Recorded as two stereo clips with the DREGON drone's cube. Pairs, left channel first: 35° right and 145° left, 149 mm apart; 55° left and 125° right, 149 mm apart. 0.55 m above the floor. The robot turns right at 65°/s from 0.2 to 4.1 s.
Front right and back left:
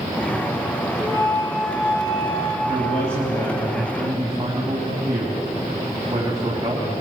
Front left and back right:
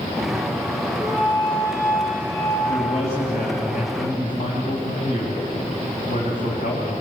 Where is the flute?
170° right, 6 m; by 2.6 s 65° right, 6 m.